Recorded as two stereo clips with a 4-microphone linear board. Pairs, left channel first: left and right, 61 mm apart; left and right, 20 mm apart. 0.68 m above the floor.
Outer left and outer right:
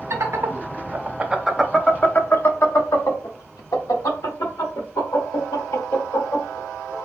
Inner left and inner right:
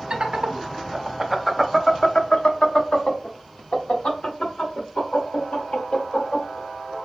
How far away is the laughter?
About 1.0 m.